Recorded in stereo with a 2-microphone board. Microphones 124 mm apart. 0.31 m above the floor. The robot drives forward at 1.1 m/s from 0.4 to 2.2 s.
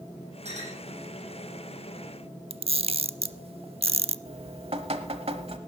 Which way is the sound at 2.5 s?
50° right (ahead or behind).